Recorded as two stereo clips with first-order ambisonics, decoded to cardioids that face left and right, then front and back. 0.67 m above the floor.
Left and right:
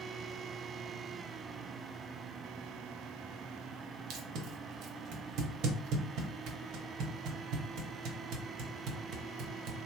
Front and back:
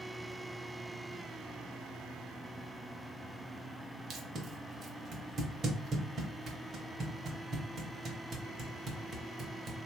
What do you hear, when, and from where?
4.1 s tape being pulled: 120° right, 0.7 m